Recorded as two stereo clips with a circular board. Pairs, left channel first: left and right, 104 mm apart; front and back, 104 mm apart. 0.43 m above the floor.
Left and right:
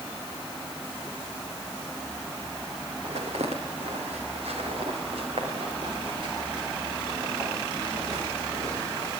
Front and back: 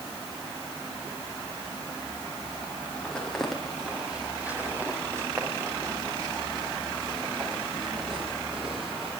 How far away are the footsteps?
About 5.5 m.